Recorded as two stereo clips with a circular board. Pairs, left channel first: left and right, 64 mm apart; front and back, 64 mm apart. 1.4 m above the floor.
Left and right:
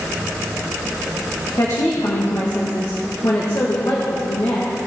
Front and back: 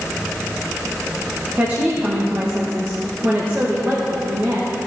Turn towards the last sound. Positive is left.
turn(degrees=120)